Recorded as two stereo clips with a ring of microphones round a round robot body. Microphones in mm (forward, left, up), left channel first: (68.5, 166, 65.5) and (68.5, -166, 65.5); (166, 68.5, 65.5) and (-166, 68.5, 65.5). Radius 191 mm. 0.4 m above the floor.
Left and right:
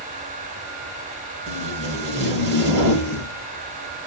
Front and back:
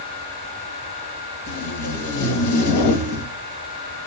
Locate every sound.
1.5 s tape being pulled: 30° right, 1.2 m